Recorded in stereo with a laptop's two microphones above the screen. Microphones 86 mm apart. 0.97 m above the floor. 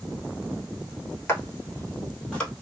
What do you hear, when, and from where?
1.3 s footsteps: 30° left (ahead or behind), 1.2 m; by 2.5 s 5° left (ahead or behind), 1.7 m